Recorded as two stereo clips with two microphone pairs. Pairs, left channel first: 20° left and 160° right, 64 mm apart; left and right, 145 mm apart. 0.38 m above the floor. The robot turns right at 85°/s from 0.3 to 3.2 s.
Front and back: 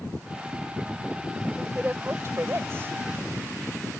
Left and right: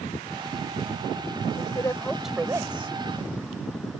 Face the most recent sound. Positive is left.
turn(degrees=-95)